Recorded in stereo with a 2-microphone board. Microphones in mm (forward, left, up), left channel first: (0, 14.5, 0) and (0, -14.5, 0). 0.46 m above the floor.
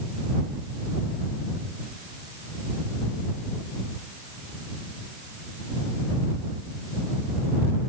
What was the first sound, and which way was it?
Only background noise.